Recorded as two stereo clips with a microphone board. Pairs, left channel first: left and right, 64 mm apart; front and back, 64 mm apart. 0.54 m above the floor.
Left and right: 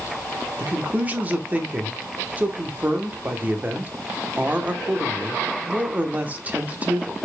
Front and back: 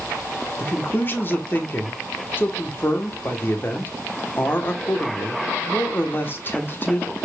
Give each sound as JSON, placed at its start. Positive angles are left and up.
{"t": 0.6, "sound": "a man speaking", "azimuth_deg": -35, "distance_m": 1.2}